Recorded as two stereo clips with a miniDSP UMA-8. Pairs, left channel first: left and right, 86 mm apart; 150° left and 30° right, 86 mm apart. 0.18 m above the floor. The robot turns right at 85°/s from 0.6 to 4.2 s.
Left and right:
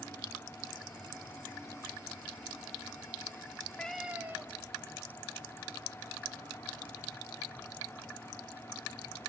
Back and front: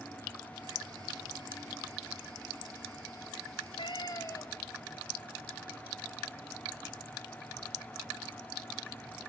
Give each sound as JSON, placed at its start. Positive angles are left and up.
{"t": 3.5, "sound": "a cat meowing", "azimuth_deg": 145, "distance_m": 2.5}